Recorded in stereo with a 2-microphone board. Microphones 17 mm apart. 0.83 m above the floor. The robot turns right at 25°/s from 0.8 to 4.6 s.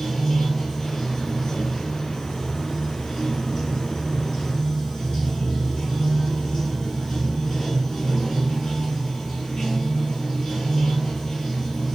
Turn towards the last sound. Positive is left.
turn(degrees=135)